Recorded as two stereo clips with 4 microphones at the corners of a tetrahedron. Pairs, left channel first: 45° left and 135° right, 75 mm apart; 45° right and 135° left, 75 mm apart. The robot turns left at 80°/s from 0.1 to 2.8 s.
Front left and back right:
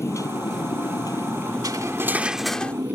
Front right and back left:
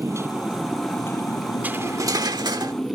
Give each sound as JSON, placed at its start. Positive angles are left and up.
{"t": 0.0, "sound": "a motorcycle", "azimuth_deg": 90}
{"t": 1.6, "sound": "cutlery clinking", "azimuth_deg": -160}